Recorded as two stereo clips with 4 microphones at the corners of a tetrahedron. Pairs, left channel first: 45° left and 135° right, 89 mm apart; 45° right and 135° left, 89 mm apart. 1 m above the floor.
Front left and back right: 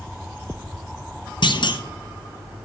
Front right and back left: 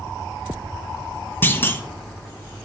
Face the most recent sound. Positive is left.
turn(degrees=20)